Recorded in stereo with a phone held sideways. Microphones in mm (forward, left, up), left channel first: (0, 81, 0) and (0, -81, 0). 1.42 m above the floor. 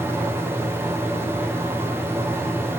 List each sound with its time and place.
0.0 s a fan: 15° right (ahead or behind), 1.1 m